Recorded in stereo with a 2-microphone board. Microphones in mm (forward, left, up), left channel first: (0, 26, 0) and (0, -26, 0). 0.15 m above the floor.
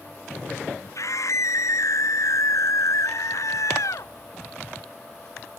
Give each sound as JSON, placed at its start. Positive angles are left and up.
{"t": 0.9, "sound": "a scream", "side_deg": 75}